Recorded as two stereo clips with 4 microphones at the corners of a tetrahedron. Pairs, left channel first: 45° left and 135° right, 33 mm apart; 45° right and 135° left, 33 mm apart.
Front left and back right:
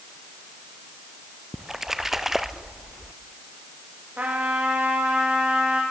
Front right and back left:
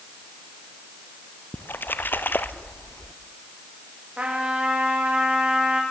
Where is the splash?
55° right, 1.1 m.